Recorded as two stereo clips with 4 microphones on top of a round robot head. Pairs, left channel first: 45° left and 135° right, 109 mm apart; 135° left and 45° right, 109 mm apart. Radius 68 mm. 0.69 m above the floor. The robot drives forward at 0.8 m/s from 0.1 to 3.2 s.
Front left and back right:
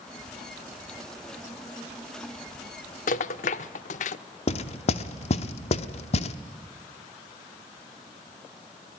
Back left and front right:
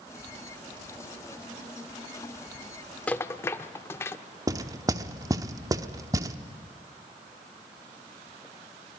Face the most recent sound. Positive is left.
turn(degrees=15)